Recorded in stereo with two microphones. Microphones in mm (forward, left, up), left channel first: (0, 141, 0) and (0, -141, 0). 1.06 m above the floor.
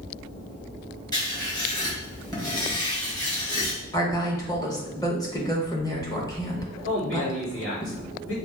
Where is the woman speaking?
15° left (ahead or behind), 1.2 m.